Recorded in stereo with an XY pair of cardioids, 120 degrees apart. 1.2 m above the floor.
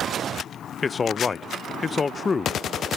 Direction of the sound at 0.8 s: 25° left.